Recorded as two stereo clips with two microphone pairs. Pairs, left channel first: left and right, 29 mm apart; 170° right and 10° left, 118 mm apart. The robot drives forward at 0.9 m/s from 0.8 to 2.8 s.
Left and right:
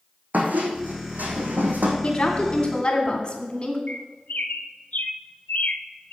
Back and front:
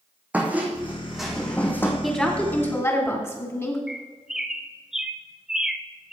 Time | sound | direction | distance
0.3 | a squeak | 70° right | 1.8 m
2.0 | a woman speaking | 100° left | 1.8 m
3.9 | a bird | 95° left | 0.7 m